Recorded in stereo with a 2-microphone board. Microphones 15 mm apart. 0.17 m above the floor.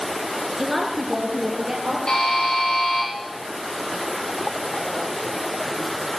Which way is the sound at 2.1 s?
60° left (ahead or behind).